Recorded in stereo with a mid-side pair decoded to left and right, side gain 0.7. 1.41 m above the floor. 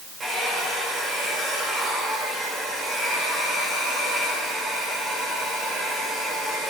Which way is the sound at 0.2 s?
30° right.